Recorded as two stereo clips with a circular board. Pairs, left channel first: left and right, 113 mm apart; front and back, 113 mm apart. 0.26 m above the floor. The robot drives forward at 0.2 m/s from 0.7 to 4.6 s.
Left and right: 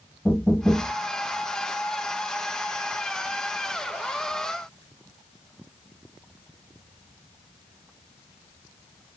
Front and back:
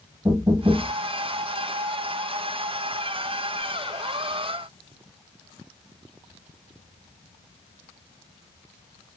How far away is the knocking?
About 0.7 m.